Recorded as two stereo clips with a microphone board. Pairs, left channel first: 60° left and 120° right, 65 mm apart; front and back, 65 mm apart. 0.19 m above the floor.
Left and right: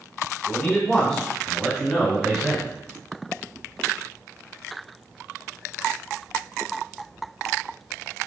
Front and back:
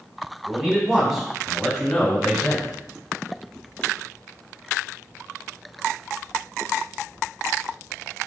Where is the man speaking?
115° left, 1.4 m; by 2.7 s 60° right, 1.3 m.